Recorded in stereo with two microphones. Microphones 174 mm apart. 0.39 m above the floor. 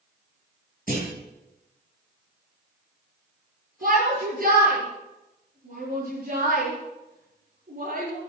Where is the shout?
55° right (ahead or behind), 9 m.